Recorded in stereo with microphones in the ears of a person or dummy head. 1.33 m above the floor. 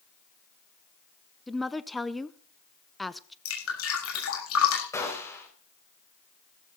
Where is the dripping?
85° left, 7.5 m.